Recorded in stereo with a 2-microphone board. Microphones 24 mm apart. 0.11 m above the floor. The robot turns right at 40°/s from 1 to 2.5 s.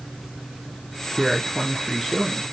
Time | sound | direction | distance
1.2 | a man speaking | 15° right (ahead or behind) | 1.2 m